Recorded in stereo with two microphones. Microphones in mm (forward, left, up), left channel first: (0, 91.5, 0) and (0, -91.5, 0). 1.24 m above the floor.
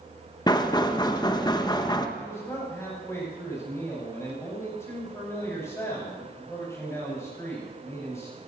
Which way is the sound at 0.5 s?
20° left (ahead or behind).